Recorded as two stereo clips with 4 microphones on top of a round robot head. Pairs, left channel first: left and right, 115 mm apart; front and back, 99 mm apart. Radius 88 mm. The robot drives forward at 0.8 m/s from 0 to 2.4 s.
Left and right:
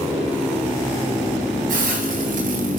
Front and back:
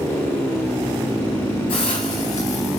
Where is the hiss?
55° right, 3 m; by 2.8 s 70° right, 2.5 m.